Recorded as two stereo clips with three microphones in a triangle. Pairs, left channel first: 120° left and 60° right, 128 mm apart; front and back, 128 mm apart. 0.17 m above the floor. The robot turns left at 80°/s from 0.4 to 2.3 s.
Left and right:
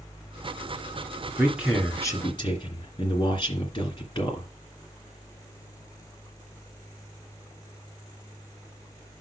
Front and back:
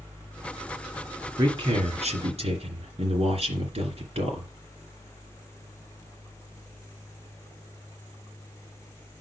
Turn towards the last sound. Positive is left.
turn(degrees=165)